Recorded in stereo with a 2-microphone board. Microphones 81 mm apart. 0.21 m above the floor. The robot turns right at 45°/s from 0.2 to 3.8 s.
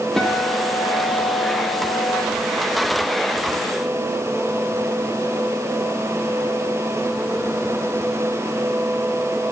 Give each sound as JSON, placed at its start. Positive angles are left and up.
{"t": 0.2, "sound": "a guitar", "azimuth_deg": 5, "distance_m": 6.5}